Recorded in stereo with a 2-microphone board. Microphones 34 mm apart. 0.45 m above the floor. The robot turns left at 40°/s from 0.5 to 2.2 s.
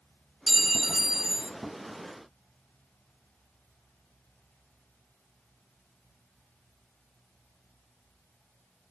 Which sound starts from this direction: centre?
A clink, at 0.5 s.